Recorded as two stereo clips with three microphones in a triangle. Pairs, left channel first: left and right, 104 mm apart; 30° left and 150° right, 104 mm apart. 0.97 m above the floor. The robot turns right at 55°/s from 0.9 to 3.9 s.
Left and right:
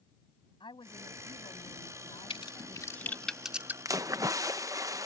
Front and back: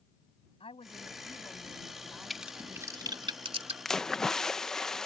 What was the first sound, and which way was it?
A woman speaking, 55° left.